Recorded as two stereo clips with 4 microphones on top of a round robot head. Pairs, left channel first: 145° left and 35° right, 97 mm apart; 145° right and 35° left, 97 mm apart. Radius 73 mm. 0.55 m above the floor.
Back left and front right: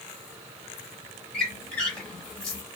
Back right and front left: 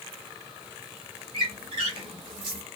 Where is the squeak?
65° left, 0.7 m.